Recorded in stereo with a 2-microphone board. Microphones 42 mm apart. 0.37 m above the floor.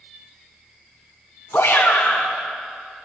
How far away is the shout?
About 3 m.